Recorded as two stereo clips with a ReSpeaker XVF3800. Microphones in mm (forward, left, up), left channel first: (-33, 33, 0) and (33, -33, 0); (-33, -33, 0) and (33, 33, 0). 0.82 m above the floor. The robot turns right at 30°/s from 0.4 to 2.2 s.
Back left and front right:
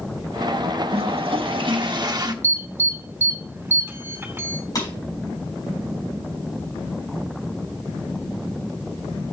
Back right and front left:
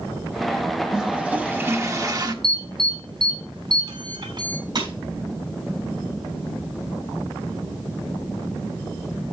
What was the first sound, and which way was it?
A toilet flushing, 40° right.